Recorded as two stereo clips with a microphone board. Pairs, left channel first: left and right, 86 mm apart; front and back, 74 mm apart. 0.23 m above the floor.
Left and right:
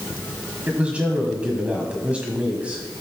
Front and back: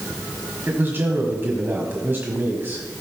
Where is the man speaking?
150° right, 1.6 m.